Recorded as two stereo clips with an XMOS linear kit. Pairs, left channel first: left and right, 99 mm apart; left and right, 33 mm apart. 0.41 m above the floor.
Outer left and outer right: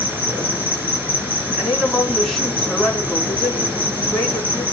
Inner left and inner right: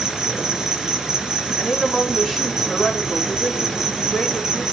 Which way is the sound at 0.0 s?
20° right (ahead or behind).